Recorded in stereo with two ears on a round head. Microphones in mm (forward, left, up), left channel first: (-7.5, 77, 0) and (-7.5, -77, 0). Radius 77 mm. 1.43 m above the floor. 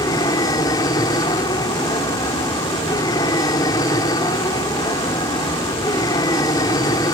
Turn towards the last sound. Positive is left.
turn(degrees=25)  # may be behind; listen again after turning